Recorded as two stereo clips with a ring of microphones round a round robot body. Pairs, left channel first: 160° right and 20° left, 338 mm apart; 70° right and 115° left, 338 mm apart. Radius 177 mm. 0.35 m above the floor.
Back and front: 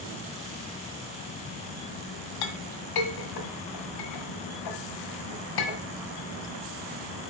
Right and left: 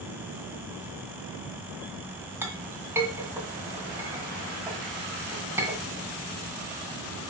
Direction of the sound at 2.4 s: 165° right.